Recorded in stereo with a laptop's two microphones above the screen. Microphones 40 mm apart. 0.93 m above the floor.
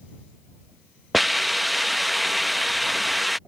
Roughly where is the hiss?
Centre.